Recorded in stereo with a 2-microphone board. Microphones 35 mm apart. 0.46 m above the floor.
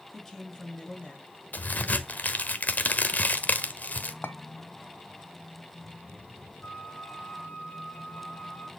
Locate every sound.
0.1 s a woman speaking: 10° left (ahead or behind), 3.5 m; by 1.3 s 30° left (ahead or behind), 3.5 m
1.5 s a crack: 50° left (ahead or behind), 1.2 m
4.2 s a clink: 75° left (ahead or behind), 1.3 m
6.6 s a flute: 50° left (ahead or behind), 5 m